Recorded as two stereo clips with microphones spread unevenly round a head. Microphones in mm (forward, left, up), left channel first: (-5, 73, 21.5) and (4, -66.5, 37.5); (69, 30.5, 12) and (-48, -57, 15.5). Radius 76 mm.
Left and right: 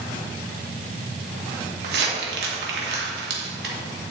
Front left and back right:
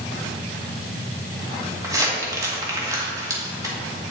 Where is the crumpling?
75° right, 2.0 m.